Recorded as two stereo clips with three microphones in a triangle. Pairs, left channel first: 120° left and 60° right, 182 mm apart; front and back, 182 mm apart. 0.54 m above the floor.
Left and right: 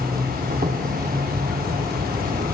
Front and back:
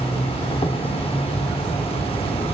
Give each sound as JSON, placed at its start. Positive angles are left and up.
{"t": 0.0, "sound": "an insect", "azimuth_deg": -50, "distance_m": 0.7}